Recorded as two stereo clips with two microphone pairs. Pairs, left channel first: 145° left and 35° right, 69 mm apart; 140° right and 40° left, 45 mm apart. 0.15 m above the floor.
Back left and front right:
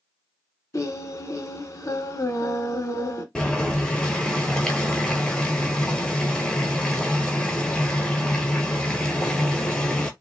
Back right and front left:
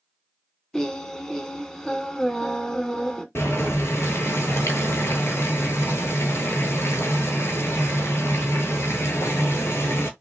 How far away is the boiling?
About 0.8 m.